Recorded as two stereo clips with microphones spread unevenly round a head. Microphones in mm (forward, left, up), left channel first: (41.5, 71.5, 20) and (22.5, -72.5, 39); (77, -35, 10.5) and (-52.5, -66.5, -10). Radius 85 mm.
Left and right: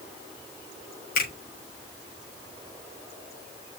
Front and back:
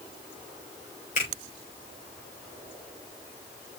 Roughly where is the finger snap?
Ahead left.